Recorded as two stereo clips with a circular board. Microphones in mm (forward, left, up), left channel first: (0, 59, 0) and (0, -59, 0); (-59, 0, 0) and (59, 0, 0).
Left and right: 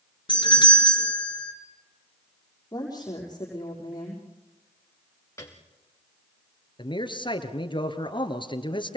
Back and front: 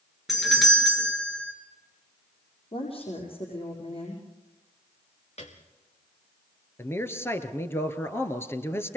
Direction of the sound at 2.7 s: 145° left.